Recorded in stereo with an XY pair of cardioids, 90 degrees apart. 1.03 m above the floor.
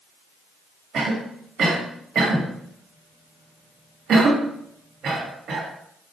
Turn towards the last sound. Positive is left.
turn(degrees=-65)